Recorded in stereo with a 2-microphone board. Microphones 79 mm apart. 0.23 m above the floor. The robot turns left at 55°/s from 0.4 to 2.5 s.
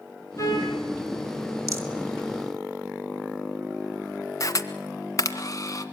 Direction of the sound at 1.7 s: 40° right (ahead or behind).